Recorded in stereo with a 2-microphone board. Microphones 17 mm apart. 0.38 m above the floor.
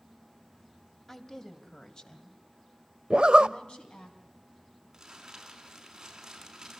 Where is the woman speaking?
25° left (ahead or behind), 2.5 m; by 4.1 s 70° left (ahead or behind), 4 m.